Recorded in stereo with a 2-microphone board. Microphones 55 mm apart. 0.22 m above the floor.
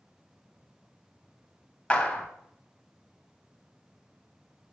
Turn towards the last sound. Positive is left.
turn(degrees=25)  # may be behind; listen again after turning